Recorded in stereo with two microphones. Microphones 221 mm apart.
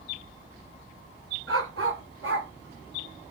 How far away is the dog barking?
About 1.7 m.